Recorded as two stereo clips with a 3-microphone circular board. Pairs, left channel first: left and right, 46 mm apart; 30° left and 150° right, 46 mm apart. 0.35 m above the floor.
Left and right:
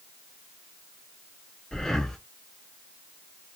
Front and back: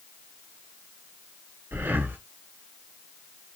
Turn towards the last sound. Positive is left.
turn(degrees=170)